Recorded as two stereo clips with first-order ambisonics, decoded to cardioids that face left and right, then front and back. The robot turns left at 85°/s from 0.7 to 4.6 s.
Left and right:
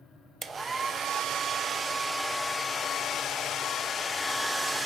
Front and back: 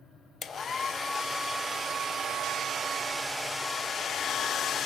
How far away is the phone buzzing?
I don't hear a phone buzzing.